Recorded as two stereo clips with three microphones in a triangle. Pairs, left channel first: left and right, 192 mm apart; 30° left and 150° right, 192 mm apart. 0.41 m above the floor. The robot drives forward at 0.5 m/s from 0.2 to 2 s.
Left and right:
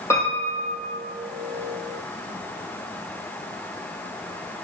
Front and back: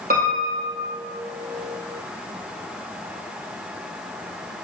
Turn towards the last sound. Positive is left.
turn(degrees=170)